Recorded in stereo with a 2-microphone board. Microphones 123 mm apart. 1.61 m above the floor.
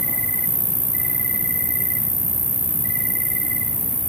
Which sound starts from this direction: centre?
An insect, at 0.0 s.